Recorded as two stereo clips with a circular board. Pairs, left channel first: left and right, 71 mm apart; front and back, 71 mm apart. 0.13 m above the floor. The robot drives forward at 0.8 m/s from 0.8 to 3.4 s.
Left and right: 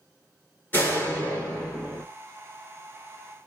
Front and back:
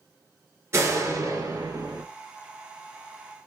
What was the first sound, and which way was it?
A door slam, 140° left.